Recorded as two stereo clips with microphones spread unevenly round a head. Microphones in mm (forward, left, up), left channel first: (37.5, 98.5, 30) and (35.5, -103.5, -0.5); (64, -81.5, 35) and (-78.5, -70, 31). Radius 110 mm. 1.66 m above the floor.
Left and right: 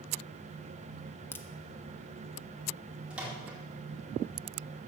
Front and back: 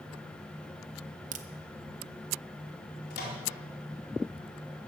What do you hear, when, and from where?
1.3 s a crack: 160° left, 0.6 m
3.1 s a microwave: 5° right, 4.5 m